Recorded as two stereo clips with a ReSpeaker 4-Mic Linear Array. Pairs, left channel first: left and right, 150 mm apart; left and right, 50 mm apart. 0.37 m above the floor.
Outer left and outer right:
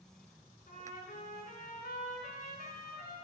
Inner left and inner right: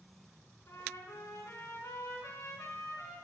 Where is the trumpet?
70° left (ahead or behind), 3.5 m.